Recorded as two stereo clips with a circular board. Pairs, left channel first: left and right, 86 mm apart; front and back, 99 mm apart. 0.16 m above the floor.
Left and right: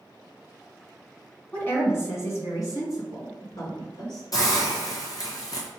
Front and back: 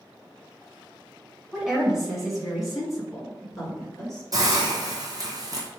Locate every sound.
1.5 s a woman speaking: 105° left, 1.7 m; by 4.2 s 85° left, 3 m
4.3 s a hiss: 130° left, 1.2 m